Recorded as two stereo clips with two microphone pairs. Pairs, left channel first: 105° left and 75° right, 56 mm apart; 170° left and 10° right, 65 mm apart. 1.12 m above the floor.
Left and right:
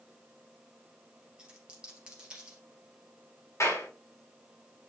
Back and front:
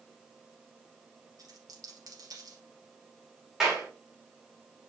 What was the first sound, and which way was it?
A dropped coin, straight ahead.